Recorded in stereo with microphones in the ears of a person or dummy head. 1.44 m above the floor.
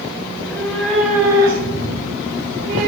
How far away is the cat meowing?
About 1.7 m.